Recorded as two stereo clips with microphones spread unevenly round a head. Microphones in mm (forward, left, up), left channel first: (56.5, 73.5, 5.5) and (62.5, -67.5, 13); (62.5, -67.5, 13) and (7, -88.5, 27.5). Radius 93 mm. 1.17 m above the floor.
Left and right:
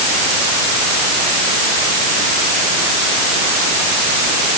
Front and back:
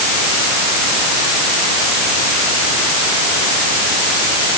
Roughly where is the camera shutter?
I don't hear a camera shutter.